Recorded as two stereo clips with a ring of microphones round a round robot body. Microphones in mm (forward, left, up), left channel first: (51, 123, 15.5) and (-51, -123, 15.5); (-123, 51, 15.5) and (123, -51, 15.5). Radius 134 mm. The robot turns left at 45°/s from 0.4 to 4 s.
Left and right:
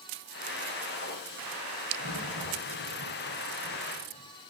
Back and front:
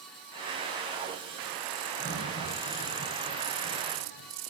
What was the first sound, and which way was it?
A crack, 110° left.